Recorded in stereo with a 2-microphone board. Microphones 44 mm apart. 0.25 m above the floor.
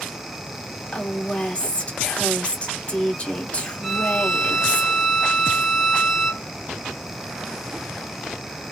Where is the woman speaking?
30° left (ahead or behind), 1.4 m.